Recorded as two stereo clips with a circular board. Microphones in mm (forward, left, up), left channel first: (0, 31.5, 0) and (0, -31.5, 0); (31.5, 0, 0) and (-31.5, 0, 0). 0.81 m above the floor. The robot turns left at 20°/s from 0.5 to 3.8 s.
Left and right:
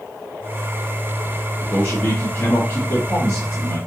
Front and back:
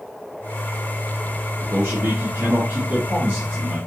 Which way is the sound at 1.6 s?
145° left.